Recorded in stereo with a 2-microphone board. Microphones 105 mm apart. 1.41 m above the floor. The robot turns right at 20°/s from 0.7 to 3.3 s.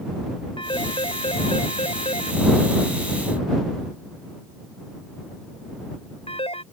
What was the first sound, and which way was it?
A phone ringing, 55° left (ahead or behind).